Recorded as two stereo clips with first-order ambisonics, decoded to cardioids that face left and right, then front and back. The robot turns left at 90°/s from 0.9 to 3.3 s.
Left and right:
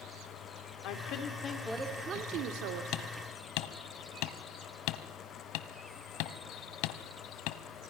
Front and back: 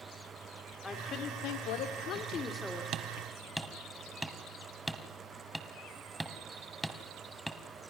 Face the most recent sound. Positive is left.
turn(degrees=95)